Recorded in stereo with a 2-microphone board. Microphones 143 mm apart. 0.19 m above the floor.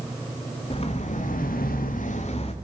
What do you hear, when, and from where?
0.7 s footsteps: 45° left (ahead or behind), 1.4 m